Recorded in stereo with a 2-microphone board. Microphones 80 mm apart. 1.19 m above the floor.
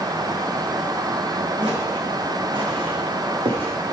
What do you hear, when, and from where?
1.6 s footsteps: 70° right (ahead or behind), 5 m; by 3.7 s 75° right (ahead or behind), 5 m